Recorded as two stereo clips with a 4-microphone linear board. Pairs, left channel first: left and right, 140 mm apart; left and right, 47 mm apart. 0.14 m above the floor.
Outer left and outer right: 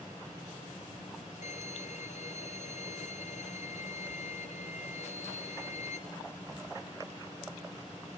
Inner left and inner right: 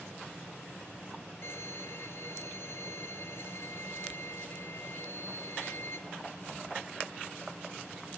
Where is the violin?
60° left (ahead or behind), 1.5 m.